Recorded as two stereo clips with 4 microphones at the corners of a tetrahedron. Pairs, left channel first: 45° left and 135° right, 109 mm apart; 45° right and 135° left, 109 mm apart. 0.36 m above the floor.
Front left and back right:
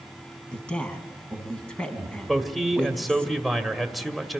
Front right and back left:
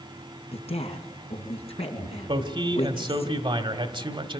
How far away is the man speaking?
About 1.6 m.